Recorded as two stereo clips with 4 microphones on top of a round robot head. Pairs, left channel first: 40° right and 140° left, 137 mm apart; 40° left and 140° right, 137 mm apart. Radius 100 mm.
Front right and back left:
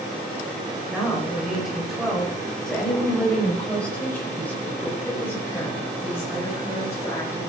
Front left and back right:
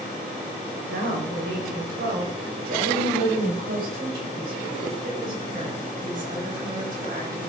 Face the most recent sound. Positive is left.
turn(degrees=-110)